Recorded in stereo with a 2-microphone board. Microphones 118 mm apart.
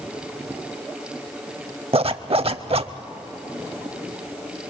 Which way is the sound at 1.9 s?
55° right (ahead or behind).